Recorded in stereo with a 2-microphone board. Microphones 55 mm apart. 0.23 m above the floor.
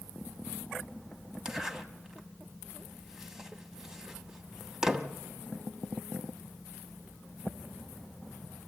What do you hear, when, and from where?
1.4 s a zipper: 10° right (ahead or behind), 1.0 m